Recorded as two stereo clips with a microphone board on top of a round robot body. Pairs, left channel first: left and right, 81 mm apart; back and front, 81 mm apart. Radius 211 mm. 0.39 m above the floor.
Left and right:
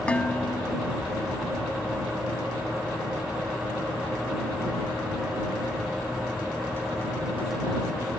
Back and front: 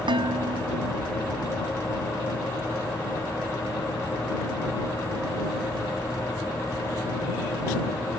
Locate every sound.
0.1 s dishes clattering: 15° left